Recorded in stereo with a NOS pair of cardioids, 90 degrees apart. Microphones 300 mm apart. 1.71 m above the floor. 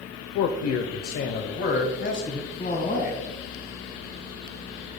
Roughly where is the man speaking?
Left.